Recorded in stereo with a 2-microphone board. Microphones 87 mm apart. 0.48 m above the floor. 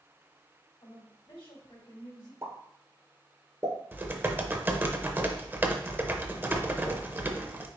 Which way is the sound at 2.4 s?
30° right (ahead or behind).